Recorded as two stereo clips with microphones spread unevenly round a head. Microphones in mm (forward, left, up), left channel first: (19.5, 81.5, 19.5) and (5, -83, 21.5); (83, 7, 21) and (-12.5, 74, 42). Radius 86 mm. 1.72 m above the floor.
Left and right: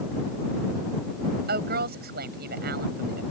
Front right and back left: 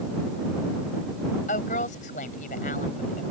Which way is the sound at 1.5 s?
65° right.